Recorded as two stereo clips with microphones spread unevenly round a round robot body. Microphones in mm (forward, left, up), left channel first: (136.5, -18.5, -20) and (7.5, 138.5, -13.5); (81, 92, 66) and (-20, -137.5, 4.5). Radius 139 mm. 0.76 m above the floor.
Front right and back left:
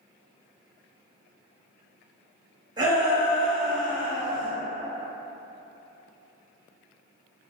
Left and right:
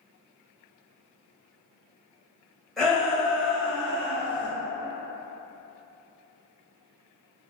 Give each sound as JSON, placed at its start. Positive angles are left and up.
{"t": 2.8, "sound": "a shout", "azimuth_deg": 180, "distance_m": 0.9}